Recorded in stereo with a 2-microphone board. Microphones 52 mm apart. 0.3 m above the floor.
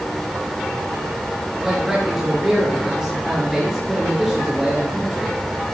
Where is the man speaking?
10° right (ahead or behind), 4.5 m.